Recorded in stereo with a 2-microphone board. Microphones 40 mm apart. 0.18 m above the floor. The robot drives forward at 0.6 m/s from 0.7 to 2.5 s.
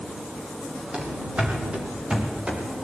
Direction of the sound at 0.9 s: 30° right (ahead or behind).